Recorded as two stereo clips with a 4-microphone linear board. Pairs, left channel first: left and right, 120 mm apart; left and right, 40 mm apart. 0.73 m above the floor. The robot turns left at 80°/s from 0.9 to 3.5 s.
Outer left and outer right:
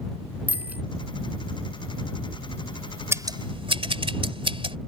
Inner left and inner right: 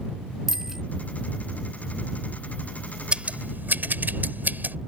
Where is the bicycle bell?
15° right (ahead or behind).